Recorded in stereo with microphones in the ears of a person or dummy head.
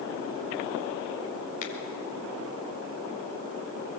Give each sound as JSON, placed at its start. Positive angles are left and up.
{"t": 1.6, "sound": "a finger snap", "side_deg": 40, "distance_m": 3.5}